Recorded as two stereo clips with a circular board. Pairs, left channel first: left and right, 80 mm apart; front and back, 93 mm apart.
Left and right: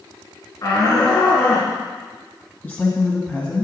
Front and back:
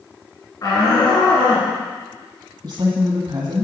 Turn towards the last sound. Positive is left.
turn(degrees=150)